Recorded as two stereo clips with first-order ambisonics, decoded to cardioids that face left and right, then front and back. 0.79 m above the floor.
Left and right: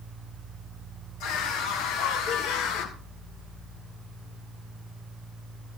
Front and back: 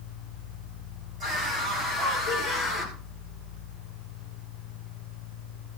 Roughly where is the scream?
Left.